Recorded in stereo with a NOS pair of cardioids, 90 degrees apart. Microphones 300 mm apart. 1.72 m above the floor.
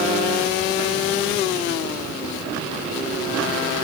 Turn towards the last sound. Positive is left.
No sound to turn to.